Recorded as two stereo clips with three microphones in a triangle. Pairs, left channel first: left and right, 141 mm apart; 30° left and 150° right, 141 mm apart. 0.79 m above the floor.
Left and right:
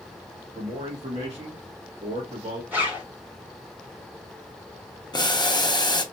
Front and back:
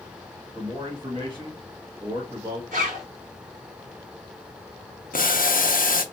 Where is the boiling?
35° left, 0.6 m.